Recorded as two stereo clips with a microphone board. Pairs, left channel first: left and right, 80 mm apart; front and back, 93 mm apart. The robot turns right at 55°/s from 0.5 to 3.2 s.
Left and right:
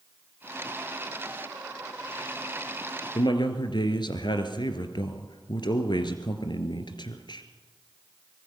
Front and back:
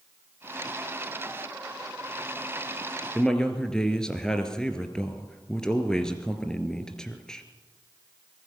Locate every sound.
3.1 s a man speaking: 80° left, 2.5 m; by 7.5 s 85° left, 2.5 m